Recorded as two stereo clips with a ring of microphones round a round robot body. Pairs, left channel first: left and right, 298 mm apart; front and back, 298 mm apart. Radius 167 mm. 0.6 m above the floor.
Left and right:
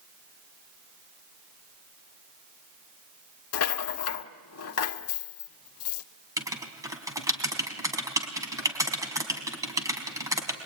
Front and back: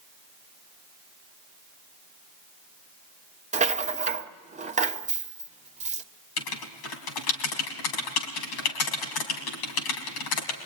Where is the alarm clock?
No alarm clock in this recording.